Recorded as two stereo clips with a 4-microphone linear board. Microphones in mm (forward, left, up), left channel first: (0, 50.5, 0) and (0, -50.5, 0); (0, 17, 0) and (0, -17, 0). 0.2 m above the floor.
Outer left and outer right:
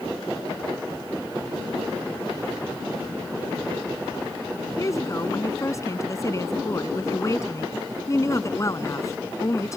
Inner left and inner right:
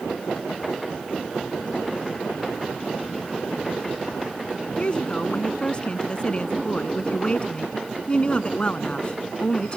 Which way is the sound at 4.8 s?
35° left (ahead or behind).